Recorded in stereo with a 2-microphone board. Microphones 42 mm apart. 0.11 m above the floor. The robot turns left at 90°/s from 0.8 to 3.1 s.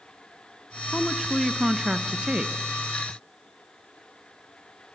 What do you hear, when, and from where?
0.9 s a woman speaking: 15° left (ahead or behind), 1.1 m; by 2.5 s 25° right (ahead or behind), 1.1 m